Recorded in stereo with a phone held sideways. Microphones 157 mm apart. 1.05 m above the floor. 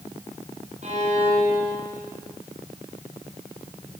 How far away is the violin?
About 6 m.